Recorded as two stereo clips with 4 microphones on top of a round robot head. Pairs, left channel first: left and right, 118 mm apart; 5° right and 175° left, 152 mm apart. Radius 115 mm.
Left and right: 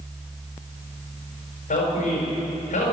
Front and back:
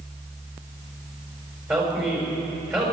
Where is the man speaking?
105° left, 5 m.